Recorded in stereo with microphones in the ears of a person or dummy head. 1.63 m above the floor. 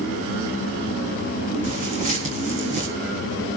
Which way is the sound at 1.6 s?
40° right (ahead or behind).